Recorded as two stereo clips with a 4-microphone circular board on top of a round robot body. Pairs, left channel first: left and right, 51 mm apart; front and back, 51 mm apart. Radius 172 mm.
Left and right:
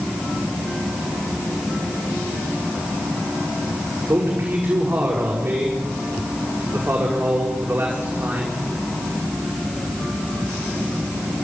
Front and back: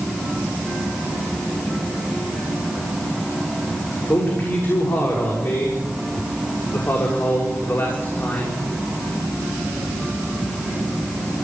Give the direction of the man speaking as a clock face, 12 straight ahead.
1 o'clock.